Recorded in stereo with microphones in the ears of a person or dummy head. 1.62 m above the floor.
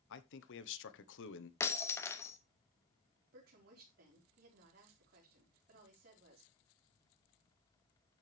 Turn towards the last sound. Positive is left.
turn(degrees=-60)  # may be behind; listen again after turning